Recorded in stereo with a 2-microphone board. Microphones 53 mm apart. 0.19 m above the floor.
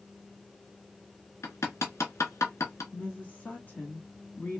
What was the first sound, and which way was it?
Hammering, 65° left (ahead or behind).